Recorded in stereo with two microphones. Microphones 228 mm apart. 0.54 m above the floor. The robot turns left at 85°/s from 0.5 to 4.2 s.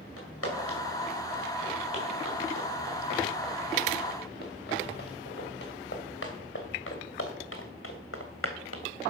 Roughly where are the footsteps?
Left.